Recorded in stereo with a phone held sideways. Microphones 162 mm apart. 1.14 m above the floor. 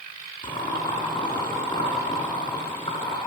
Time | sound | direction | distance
0.4 | boiling | 30° left (ahead or behind) | 5.5 m